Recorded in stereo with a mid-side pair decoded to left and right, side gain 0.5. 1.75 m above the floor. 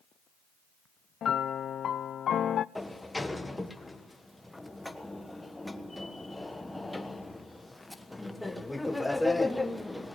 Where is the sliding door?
10° left, 1.4 m.